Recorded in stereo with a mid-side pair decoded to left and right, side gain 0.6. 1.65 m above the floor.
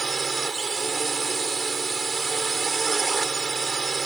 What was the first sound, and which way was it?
A drone, 20° right.